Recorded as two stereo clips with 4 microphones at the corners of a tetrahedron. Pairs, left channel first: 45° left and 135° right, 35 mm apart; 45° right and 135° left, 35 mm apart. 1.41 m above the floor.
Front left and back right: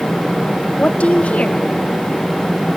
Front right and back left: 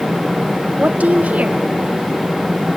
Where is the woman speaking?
95° left, 1.0 m.